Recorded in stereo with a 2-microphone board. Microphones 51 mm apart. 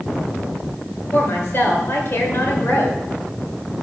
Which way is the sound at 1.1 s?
50° left (ahead or behind).